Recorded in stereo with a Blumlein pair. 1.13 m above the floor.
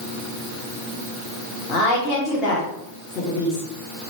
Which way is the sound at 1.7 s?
35° left.